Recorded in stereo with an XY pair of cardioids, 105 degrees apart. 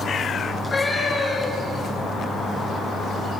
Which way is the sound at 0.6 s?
20° left.